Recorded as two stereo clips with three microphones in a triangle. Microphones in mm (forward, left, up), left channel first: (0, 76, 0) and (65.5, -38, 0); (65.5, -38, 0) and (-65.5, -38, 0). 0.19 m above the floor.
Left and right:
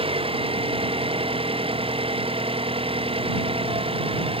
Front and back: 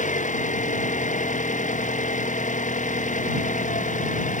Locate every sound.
0.0 s an engine running: 15° right